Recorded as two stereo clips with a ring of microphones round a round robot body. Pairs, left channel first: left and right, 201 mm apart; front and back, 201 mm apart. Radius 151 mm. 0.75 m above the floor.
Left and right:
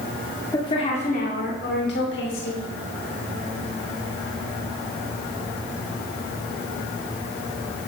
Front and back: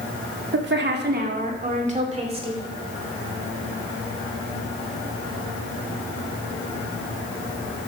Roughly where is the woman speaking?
Behind.